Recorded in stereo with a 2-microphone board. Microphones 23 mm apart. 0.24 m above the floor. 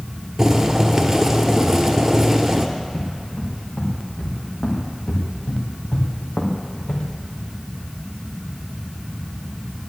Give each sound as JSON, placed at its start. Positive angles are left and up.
{"t": 0.4, "sound": "boiling", "side_deg": -20, "distance_m": 1.4}
{"t": 2.8, "sound": "footsteps", "side_deg": 50, "distance_m": 6.0}